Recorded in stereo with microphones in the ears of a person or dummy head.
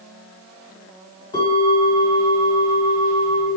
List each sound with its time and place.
1.3 s a bell: 30° left (ahead or behind), 1.5 m